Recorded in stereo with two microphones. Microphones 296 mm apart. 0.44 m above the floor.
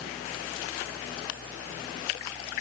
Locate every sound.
Only background noise.